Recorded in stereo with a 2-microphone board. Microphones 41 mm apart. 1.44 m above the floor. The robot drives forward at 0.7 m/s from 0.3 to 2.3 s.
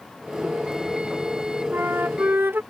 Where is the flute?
60° right (ahead or behind); by 2.6 s 70° right (ahead or behind).